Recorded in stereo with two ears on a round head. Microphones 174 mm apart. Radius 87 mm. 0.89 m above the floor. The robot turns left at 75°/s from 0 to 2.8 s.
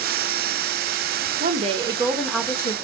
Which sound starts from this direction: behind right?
A woman speaking, at 1.4 s.